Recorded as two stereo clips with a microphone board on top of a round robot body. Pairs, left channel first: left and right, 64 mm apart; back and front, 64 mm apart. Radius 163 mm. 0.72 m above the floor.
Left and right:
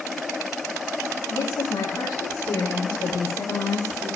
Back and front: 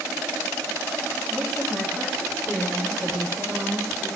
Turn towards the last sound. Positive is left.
turn(degrees=85)